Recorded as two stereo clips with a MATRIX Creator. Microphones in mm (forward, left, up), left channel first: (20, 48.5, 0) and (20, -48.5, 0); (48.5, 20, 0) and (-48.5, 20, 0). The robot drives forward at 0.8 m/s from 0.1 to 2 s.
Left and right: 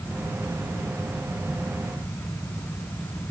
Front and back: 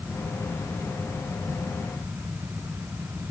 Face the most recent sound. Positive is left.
No sound to turn to.